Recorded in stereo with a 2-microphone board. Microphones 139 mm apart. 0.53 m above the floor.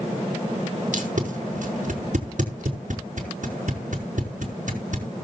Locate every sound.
0.9 s tape being pulled: 65° right (ahead or behind), 4.5 m